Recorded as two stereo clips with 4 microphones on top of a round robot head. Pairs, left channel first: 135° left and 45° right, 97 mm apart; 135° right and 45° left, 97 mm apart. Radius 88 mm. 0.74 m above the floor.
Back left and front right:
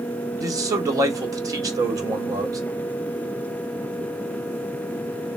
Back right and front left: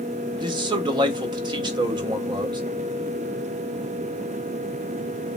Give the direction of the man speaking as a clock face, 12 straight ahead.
12 o'clock.